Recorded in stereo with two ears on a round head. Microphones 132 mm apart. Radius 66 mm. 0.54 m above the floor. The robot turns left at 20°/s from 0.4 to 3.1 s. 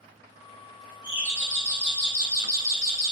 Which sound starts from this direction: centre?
A doorbell, at 1.0 s.